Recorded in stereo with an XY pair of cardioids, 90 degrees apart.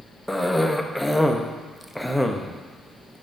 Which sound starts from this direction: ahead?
A cough, at 0.3 s.